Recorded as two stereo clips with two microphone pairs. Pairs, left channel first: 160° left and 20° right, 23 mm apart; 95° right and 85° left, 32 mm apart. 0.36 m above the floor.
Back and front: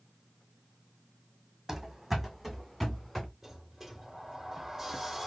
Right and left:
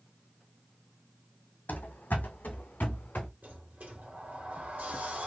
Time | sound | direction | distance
1.7 | running footsteps | 95° right | 0.9 m
3.4 | a sliding door | 60° left | 2 m